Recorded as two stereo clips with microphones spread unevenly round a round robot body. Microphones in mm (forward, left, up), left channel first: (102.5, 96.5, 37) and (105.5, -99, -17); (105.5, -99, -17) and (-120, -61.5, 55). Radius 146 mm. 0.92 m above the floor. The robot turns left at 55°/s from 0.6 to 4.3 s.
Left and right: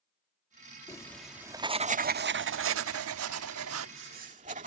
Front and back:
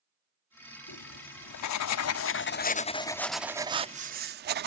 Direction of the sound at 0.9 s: 30° left.